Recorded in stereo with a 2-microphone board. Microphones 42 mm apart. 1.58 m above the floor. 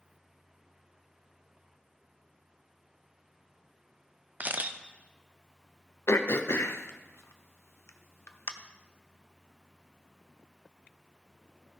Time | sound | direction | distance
4.4 | a camera shutter | 40° right (ahead or behind) | 0.7 m
6.1 | throat clearing | 80° left | 0.8 m